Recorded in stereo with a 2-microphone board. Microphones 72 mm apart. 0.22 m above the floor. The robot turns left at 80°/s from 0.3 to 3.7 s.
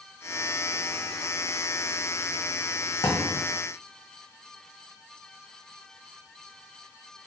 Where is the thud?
100° left, 1.2 m; by 3.4 s 70° left, 1.2 m.